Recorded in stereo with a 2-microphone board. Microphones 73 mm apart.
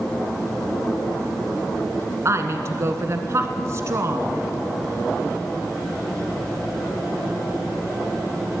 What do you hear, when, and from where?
2.2 s a woman speaking: 40° right (ahead or behind), 1.4 m